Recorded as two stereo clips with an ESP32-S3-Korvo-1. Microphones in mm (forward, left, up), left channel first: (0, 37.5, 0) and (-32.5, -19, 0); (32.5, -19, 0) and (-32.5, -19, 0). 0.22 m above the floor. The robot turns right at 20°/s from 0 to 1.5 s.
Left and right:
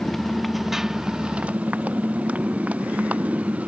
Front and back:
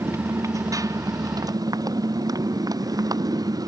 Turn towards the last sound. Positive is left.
turn(degrees=170)